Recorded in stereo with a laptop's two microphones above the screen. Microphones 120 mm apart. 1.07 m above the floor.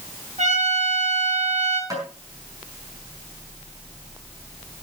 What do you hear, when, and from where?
0.4 s a trumpet: 90° right, 7.5 m
1.9 s tapping: 30° right (ahead or behind), 5.5 m